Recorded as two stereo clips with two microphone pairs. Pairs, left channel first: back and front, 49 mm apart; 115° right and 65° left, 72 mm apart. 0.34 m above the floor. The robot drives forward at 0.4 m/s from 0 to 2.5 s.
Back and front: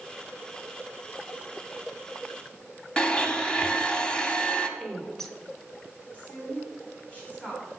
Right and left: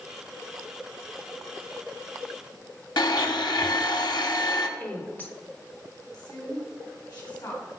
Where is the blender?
110° right, 0.7 m.